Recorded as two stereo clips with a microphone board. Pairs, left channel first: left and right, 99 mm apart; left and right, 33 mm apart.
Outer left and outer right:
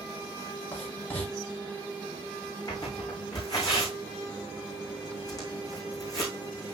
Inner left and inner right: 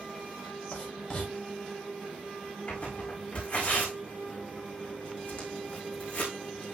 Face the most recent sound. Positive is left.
turn(degrees=40)  # may be behind; listen again after turning